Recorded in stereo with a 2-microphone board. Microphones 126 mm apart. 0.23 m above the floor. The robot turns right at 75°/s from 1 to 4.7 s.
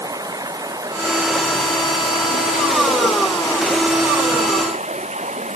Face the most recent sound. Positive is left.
turn(degrees=-110)